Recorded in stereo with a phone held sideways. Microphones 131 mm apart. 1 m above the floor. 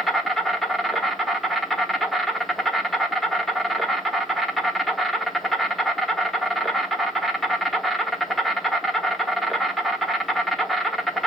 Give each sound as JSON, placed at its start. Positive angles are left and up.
{"t": 0.0, "sound": "an insect", "side_deg": 0, "distance_m": 0.8}